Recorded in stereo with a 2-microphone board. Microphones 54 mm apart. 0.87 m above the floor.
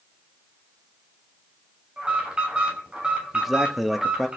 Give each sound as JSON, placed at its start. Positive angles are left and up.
{"t": 2.0, "sound": "an alarm", "side_deg": -20, "distance_m": 8.5}
{"t": 3.3, "sound": "a man speaking", "side_deg": -5, "distance_m": 1.8}